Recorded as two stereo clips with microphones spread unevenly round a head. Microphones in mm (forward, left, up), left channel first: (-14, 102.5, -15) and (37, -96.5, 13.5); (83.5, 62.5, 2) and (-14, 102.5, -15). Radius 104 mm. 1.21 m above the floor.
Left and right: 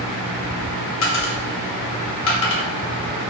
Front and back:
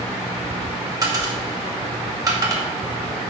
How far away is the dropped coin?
About 2 m.